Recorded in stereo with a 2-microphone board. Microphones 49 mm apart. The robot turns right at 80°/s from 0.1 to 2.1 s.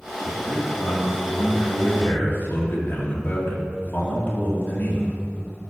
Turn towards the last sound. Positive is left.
turn(degrees=135)